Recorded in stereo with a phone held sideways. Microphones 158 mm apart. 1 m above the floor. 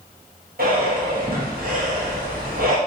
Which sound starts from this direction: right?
Breathing, at 0.6 s.